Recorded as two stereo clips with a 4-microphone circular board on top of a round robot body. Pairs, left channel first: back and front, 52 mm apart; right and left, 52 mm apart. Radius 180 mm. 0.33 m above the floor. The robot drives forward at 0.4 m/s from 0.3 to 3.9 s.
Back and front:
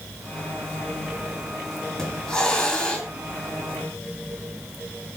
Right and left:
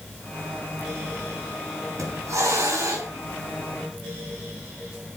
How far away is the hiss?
About 5.5 m.